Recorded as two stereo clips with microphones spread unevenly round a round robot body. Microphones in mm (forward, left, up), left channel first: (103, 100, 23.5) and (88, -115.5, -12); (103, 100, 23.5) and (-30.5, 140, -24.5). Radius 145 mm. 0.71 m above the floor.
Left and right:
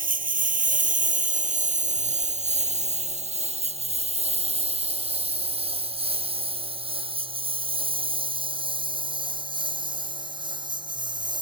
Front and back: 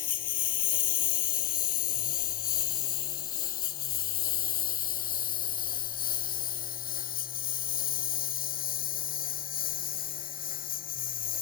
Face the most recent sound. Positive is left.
turn(degrees=-25)